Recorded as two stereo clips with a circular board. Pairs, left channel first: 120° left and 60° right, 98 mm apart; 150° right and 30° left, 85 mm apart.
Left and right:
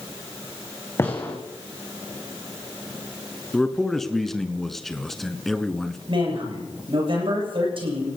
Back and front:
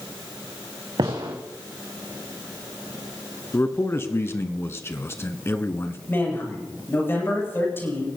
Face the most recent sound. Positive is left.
turn(degrees=-85)